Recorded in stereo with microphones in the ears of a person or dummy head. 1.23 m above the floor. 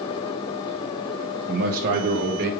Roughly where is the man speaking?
Right.